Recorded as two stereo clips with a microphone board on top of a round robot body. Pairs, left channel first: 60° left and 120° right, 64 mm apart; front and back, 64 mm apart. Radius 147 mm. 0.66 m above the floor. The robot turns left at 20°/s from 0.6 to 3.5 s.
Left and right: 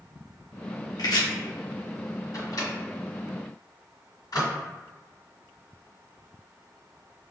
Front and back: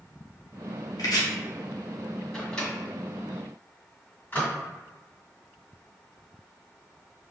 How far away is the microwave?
About 1.6 m.